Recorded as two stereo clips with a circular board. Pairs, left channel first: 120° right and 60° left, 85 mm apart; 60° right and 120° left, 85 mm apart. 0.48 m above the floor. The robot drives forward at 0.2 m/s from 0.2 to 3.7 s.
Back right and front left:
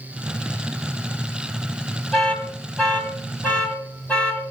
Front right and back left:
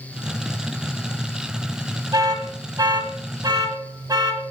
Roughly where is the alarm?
Behind.